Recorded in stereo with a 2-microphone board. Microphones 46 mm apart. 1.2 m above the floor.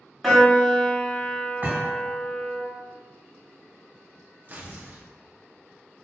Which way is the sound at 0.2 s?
Centre (ahead or behind).